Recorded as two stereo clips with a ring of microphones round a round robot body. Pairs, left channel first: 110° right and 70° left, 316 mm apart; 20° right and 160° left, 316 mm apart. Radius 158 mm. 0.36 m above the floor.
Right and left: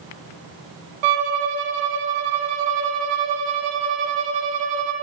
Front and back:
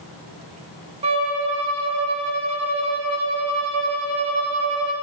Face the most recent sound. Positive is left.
turn(degrees=85)